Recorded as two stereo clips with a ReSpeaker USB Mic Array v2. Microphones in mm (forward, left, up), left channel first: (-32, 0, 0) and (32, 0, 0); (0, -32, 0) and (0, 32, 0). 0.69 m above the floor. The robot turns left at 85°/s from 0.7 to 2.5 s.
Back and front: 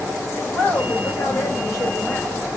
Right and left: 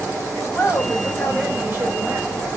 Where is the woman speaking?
130° right, 2.5 m; by 2.6 s 75° left, 2.5 m.